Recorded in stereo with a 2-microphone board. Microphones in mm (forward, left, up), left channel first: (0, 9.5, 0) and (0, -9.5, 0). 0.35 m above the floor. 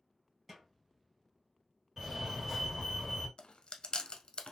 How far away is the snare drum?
About 2.5 m.